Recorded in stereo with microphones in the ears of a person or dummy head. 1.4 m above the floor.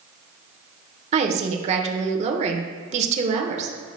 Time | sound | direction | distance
1.1 | a woman speaking | 45° right (ahead or behind) | 1.1 m